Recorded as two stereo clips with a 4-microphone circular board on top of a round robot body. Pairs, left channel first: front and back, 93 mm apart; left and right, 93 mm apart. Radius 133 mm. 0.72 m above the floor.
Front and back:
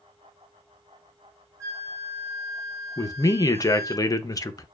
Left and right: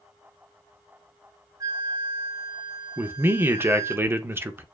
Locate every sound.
1.6 s a flute: 130° right, 0.9 m
3.0 s a man speaking: 35° right, 0.6 m